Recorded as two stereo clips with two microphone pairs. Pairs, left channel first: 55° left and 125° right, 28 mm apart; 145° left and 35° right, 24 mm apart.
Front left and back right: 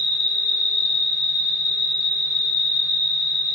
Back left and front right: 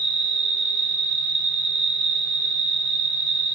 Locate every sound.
0.0 s an insect: 115° right, 1.4 m